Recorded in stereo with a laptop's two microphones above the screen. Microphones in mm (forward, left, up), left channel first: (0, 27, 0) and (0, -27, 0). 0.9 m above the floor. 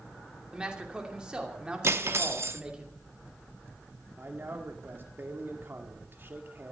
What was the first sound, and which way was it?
A man speaking, 15° right (ahead or behind).